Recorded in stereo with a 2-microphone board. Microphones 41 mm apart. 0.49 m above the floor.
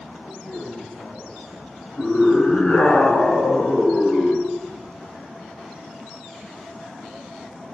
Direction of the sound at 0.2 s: 65° left (ahead or behind).